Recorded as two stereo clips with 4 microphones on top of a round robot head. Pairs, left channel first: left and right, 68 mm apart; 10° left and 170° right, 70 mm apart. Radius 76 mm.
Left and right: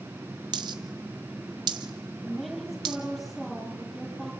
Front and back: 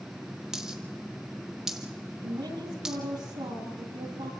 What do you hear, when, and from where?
0.5 s a dropped coin: 90° right, 1.0 m
2.2 s a woman speaking: straight behind, 8 m